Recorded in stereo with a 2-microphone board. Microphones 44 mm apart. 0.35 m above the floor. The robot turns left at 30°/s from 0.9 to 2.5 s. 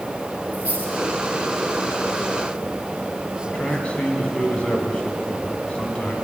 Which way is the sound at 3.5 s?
30° left (ahead or behind).